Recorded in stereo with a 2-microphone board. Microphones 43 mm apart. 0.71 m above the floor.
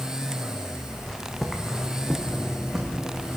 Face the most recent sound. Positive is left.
turn(degrees=-15)  # may be behind; listen again after turning